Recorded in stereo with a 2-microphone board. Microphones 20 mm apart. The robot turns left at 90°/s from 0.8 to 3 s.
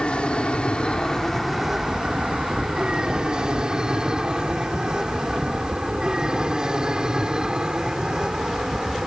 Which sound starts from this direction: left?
An aircraft, at 0.0 s.